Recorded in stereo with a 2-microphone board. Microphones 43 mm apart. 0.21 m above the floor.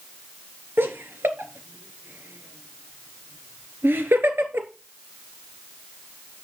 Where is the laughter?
60° right (ahead or behind), 2.5 m.